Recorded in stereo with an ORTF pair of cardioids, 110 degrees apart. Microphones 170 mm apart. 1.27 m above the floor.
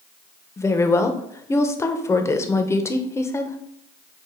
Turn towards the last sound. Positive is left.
turn(degrees=15)